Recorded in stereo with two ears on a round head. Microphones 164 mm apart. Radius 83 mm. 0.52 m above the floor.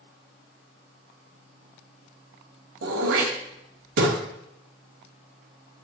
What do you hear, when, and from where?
2.8 s throat clearing: 80° right, 1.3 m